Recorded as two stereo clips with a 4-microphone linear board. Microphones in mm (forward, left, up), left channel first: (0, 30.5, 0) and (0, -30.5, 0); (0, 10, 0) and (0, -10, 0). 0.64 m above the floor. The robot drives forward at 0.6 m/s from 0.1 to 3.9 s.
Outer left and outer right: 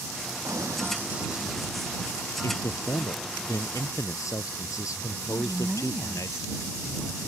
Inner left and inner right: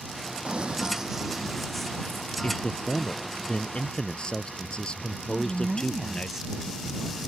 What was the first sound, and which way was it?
Running footsteps, 65° right (ahead or behind).